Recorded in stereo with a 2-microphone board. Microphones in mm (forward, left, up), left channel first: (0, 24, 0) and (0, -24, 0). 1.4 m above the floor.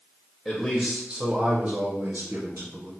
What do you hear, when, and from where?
0.5 s a man speaking: 5° left (ahead or behind), 0.7 m; by 2.9 s 75° right (ahead or behind), 1.2 m